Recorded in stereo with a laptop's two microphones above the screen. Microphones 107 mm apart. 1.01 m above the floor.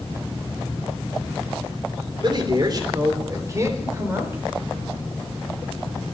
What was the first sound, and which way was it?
A man speaking, 45° right (ahead or behind).